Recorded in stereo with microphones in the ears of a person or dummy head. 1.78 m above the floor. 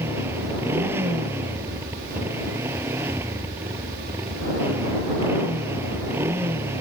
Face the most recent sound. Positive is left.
turn(degrees=-10)  # may be behind; listen again after turning